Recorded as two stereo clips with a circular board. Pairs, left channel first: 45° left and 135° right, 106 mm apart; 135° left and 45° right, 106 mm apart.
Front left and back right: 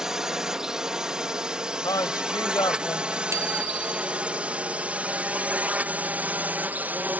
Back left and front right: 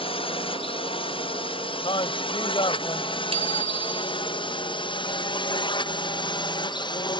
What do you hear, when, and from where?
0.0 s a drone: 140° left; by 7.2 s 155° left
1.8 s a man speaking: 100° left
3.3 s a bicycle bell: 70° right